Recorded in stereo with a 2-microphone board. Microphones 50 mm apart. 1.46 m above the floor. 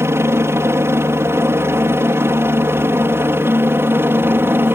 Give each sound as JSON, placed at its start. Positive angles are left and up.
{"t": 0.0, "sound": "a helicopter", "side_deg": -55}